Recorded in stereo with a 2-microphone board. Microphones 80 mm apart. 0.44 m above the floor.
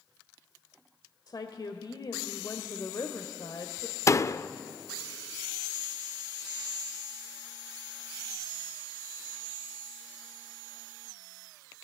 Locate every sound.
1.3 s a woman speaking: 55° left (ahead or behind), 1.7 m
4.1 s a door slam: 35° left (ahead or behind), 0.6 m